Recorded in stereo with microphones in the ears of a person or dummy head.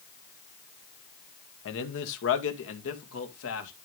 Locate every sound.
1.6 s a man speaking: 70° left (ahead or behind), 1.8 m; by 3.7 s 75° left (ahead or behind), 3 m